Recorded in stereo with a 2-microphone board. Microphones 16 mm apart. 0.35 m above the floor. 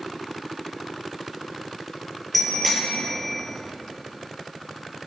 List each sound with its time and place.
2.3 s a bicycle bell: 10° left (ahead or behind), 6 m